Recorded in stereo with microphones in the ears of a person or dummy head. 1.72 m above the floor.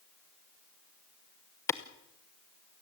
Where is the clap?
15° left (ahead or behind), 0.9 m.